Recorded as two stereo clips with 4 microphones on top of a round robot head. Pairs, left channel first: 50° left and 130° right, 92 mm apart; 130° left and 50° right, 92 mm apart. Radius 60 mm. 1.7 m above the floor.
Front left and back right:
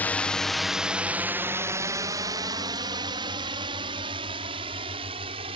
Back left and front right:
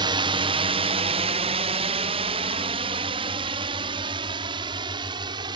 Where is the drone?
20° right; by 5.6 s 95° right.